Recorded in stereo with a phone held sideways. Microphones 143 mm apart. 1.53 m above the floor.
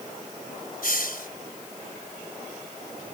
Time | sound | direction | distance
0.8 | a hiss | 80° left | ?